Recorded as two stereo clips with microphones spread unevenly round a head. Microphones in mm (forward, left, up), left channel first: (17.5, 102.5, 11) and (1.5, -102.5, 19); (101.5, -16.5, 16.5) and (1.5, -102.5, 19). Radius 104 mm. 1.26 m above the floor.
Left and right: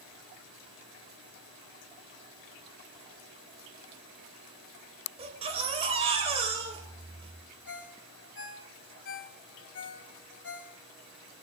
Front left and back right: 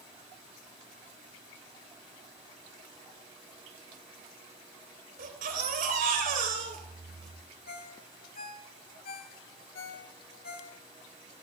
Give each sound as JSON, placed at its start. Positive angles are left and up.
{"t": 5.2, "sound": "a baby crying", "azimuth_deg": -155, "distance_m": 3.5}
{"t": 7.7, "sound": "a ringtone", "azimuth_deg": 60, "distance_m": 2.5}